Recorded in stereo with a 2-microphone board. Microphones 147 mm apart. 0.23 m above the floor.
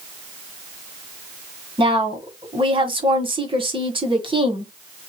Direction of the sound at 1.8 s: 40° right (ahead or behind).